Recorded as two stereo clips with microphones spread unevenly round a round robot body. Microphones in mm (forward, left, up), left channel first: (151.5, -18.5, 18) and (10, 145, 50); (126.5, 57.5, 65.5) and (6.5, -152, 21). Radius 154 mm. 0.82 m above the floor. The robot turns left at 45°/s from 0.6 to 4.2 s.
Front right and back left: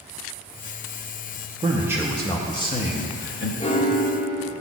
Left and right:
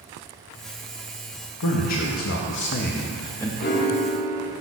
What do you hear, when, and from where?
1.6 s a man speaking: 60° left, 0.7 m; by 3.5 s 25° right, 0.7 m
3.6 s a piano: 20° left, 0.7 m; by 4.5 s 5° right, 0.7 m